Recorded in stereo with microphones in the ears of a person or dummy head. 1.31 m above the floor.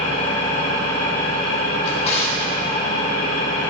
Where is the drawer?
40° left (ahead or behind), 1.2 m.